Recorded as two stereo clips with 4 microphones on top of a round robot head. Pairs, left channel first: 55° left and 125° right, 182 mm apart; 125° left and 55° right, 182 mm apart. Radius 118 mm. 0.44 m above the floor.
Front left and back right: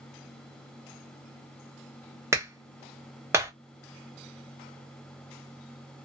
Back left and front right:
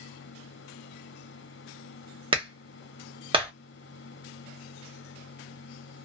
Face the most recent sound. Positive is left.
turn(degrees=-65)